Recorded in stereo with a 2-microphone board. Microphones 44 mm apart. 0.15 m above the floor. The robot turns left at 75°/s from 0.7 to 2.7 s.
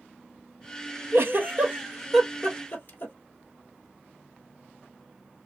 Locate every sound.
1.1 s a giggle: 70° right (ahead or behind), 1.2 m; by 3.1 s 45° left (ahead or behind), 1.2 m